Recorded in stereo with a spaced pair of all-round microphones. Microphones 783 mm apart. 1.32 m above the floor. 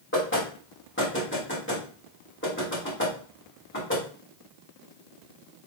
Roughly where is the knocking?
Centre.